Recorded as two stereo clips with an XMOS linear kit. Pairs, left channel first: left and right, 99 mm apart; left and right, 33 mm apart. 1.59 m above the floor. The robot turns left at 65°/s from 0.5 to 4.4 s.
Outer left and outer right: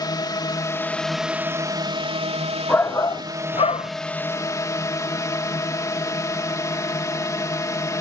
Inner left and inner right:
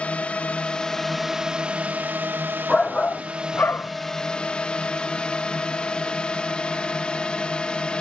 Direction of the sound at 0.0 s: 40° left.